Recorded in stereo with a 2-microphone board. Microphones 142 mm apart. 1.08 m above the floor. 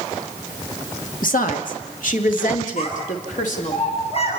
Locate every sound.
1.2 s a woman speaking: 70° left (ahead or behind), 2 m; by 3.8 s 65° left (ahead or behind), 3.5 m
2.8 s a child speaking: 45° left (ahead or behind), 7.5 m